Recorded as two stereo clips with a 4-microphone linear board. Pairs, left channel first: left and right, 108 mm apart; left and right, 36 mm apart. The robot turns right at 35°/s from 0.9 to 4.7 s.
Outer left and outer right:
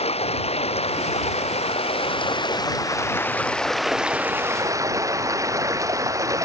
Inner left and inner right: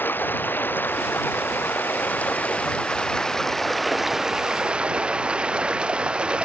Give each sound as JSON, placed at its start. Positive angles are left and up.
{"t": 0.0, "sound": "running water", "azimuth_deg": 80}